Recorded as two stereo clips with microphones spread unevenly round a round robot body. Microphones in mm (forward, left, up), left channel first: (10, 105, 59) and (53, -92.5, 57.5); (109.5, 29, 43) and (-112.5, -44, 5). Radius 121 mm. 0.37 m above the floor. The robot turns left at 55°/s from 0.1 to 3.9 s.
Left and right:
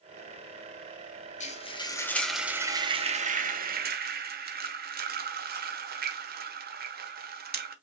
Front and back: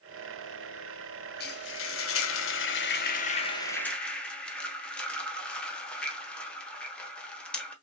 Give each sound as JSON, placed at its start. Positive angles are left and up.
{"t": 1.4, "sound": "frying", "azimuth_deg": 65, "distance_m": 1.2}